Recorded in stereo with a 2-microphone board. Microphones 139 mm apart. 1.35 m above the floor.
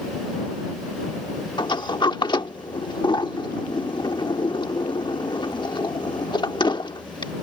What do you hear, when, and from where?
1.6 s a sliding door: 35° left (ahead or behind)